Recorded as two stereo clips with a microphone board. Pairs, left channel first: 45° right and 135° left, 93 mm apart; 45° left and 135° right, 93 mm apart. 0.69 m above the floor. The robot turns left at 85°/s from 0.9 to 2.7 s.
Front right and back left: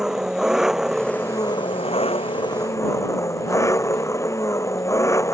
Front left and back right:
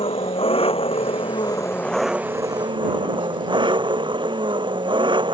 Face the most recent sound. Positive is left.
turn(degrees=-105)